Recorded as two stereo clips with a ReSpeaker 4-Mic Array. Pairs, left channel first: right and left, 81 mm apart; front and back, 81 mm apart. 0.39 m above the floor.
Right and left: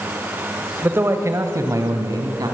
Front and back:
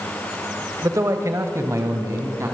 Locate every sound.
0.8 s a man speaking: 145° left, 1.5 m; by 2.5 s 125° left, 3.5 m